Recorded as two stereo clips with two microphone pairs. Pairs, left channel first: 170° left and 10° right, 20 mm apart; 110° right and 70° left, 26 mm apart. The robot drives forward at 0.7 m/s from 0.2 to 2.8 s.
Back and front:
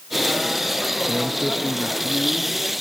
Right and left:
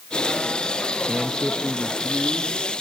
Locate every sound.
1.1 s a man speaking: 95° left, 0.7 m; by 2.6 s 165° left, 1.3 m